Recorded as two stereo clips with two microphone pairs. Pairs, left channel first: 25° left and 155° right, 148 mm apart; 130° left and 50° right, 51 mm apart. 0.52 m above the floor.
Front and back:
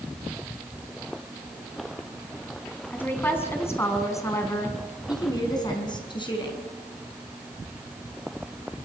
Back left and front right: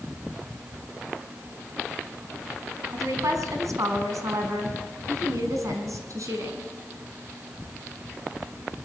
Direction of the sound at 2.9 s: 55° right.